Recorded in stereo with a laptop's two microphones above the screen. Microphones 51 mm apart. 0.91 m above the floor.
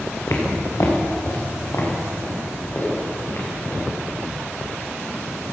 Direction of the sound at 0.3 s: 65° left (ahead or behind).